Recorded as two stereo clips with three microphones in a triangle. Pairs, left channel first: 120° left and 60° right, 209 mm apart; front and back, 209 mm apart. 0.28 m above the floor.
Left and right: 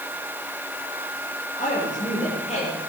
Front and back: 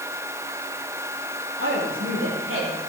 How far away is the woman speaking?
About 6.5 m.